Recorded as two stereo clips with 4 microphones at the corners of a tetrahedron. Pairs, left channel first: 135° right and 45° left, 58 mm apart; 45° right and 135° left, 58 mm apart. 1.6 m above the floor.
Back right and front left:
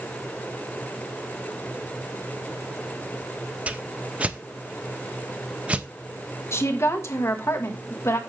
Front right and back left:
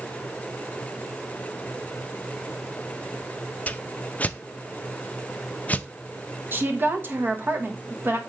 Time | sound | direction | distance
3.7 | a whoosh | 5° right | 0.5 m
6.5 | a woman speaking | 175° right | 1.5 m